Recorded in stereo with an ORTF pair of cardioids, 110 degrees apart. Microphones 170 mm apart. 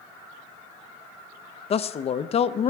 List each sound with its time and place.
1.7 s a man speaking: 40° left, 0.7 m